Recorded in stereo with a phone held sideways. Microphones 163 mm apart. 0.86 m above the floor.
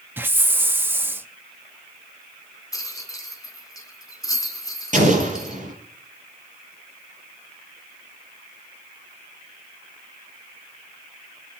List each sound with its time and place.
0.2 s a hiss: 15° right (ahead or behind), 0.8 m
2.7 s a rattle: 20° left (ahead or behind), 2 m
4.9 s an explosion: 50° right (ahead or behind), 5.5 m